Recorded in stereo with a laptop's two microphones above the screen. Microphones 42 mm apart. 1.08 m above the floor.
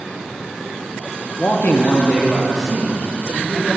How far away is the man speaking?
About 0.6 m.